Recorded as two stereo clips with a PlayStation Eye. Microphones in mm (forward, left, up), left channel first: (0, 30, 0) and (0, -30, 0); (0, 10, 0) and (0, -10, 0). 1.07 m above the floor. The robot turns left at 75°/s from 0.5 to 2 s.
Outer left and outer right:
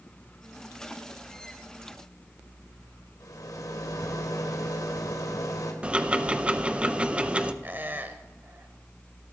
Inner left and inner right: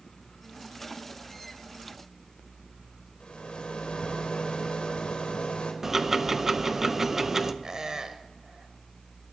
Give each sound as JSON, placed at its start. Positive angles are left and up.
{"t": 3.2, "sound": "a rattle", "side_deg": 70, "distance_m": 1.7}
{"t": 5.8, "sound": "ticking", "side_deg": -20, "distance_m": 0.5}
{"t": 7.6, "sound": "a squeak", "side_deg": -30, "distance_m": 0.9}